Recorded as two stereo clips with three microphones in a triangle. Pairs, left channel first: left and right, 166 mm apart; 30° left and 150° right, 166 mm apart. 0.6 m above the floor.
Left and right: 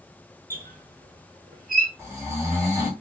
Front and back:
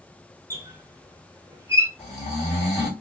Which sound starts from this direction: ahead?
Snoring, at 2.0 s.